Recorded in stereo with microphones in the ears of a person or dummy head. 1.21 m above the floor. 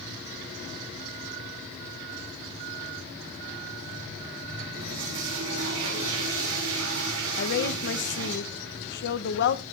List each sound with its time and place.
4.7 s a toilet flushing: 75° right (ahead or behind), 5.5 m
7.4 s a woman speaking: 60° left (ahead or behind), 0.8 m